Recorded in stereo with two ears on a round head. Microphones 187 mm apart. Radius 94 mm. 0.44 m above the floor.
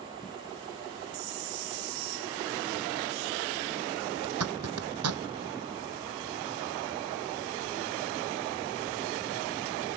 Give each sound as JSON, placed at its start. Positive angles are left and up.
{"t": 4.2, "sound": "a zipper", "side_deg": -85}